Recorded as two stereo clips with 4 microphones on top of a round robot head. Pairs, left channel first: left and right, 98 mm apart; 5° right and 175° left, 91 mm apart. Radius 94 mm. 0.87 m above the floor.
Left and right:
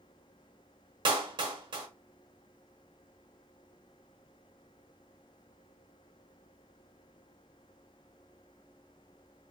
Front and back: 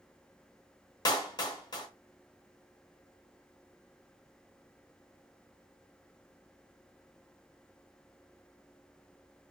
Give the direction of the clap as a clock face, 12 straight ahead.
2 o'clock.